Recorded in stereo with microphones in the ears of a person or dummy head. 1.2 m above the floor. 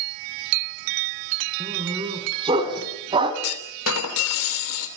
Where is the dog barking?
30° right (ahead or behind), 4 m.